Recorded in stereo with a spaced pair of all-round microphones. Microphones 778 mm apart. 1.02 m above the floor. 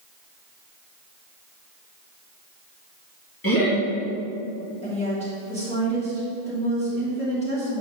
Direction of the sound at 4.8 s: 10° left (ahead or behind).